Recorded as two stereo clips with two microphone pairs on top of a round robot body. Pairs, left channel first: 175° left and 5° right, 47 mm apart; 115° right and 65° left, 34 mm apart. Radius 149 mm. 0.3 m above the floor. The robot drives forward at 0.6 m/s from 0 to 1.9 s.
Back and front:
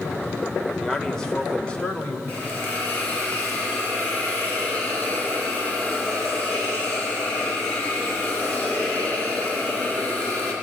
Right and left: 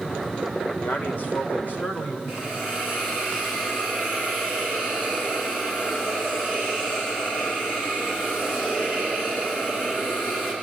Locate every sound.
0.8 s a man speaking: 110° right, 2 m; by 2.2 s 130° right, 2.5 m
2.3 s a hiss: 120° right, 5 m